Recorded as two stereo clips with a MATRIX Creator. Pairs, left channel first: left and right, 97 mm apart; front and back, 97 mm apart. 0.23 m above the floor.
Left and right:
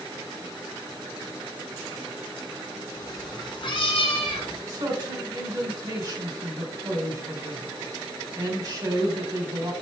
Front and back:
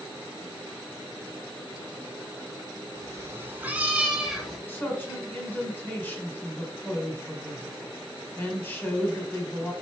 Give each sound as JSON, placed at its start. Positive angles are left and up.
{"t": 3.0, "sound": "a cat meowing", "azimuth_deg": 135, "distance_m": 1.2}
{"t": 4.7, "sound": "a man speaking", "azimuth_deg": -65, "distance_m": 1.2}